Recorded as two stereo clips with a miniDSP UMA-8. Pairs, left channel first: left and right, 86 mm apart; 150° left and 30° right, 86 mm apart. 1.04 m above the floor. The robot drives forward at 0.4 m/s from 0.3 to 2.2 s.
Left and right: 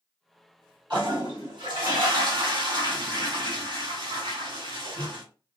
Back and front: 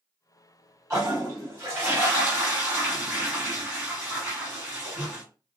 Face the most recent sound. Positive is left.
turn(degrees=-100)